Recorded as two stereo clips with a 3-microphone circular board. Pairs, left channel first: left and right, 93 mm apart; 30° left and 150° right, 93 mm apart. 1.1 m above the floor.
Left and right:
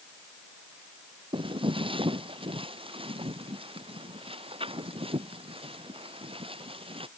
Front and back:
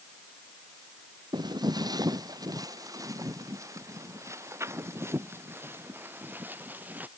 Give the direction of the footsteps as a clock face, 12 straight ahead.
4 o'clock.